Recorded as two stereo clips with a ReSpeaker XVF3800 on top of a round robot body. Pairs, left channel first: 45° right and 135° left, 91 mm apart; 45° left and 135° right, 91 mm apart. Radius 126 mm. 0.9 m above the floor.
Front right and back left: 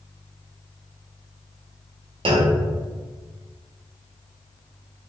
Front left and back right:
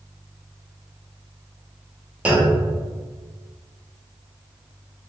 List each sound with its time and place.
2.2 s a clunk: 150° left, 0.9 m